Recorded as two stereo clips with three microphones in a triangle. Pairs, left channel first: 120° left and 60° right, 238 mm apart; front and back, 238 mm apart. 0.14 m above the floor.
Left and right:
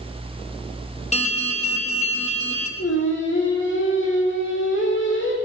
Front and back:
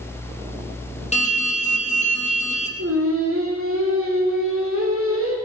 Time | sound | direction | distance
1.1 | an alarm | 60° left | 2.5 m
2.8 | singing | 155° left | 3 m